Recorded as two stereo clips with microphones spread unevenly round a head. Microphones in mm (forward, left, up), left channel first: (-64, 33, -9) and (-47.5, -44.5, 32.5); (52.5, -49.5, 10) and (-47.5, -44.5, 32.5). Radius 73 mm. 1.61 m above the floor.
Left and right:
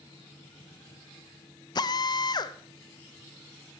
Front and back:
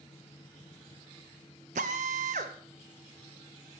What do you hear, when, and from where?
1.8 s a drill: 140° left, 0.6 m